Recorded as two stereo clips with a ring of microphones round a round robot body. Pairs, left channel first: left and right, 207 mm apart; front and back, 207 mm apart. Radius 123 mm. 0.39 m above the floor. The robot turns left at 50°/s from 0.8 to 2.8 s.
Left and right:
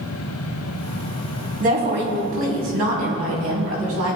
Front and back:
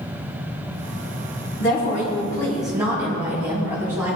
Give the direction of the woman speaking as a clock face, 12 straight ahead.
1 o'clock.